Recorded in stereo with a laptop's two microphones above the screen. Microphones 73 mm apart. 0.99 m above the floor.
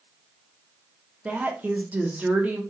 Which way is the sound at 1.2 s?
20° right (ahead or behind).